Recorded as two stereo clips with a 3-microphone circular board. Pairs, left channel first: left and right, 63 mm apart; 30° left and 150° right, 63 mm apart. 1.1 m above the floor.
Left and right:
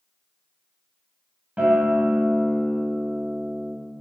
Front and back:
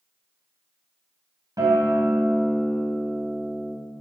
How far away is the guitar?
About 3 m.